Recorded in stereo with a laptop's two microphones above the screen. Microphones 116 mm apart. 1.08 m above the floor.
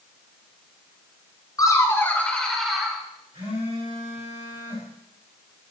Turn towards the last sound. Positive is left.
turn(degrees=-85)